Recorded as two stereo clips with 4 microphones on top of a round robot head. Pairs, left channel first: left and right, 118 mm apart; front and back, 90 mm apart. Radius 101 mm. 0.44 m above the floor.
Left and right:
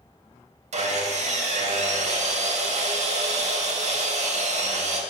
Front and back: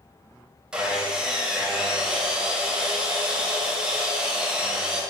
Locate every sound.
0.7 s sawing: 100° right, 2.5 m